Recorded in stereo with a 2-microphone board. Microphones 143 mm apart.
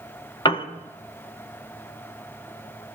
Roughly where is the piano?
Left.